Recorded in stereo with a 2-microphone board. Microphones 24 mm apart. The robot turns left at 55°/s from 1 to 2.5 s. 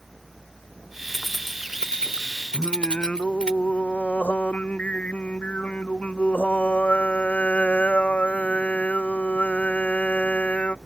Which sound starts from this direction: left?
Singing, at 2.5 s.